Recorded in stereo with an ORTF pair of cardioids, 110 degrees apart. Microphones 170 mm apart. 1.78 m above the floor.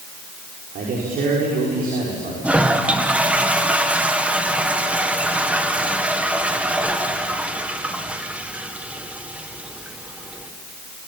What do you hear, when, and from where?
0.8 s a man speaking: 60° right, 6 m
2.4 s a toilet flushing: 10° right, 1.8 m